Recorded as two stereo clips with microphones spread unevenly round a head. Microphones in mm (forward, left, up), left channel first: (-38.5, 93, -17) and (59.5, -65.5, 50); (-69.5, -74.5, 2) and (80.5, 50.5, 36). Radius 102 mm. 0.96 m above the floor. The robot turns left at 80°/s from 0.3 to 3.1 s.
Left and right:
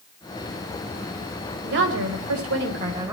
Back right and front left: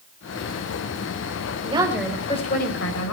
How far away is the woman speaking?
About 4 m.